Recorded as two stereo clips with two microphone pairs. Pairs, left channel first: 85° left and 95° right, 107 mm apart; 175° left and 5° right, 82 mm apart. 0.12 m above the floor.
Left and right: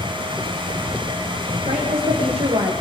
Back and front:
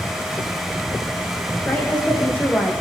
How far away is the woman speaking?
About 6 m.